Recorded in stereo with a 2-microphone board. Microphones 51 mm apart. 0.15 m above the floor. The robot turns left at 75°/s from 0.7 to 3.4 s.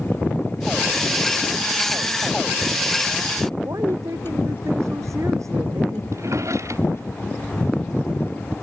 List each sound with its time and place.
3.6 s a woman speaking: 80° right
6.1 s a drawer: 75° right (ahead or behind)